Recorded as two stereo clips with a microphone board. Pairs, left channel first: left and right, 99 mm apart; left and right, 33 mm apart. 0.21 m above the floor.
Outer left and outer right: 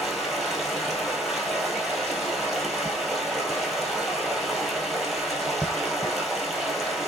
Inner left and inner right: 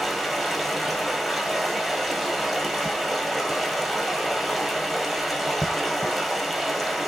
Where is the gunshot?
No gunshot in this recording.